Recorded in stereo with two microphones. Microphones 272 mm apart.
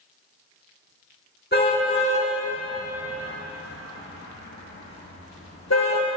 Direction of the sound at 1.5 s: 40° left (ahead or behind).